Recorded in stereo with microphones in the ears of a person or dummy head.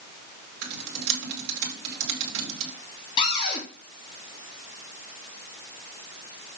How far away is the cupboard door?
About 3 m.